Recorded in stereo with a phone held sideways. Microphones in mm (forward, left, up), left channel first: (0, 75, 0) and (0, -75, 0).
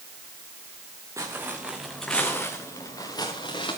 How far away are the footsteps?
About 3 m.